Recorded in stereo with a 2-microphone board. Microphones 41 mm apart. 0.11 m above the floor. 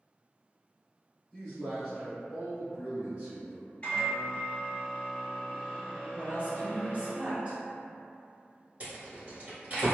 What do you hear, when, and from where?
1.3 s a man speaking: 20° left (ahead or behind), 1.6 m; by 3.7 s 35° right (ahead or behind), 1.9 m
3.8 s a microwave: 30° left (ahead or behind), 1.3 m
6.2 s a woman speaking: 25° right (ahead or behind), 1.1 m
8.8 s a rattle: 35° right (ahead or behind), 1.6 m